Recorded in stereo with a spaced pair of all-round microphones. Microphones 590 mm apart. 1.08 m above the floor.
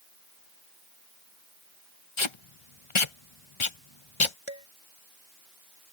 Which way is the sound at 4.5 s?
55° left (ahead or behind).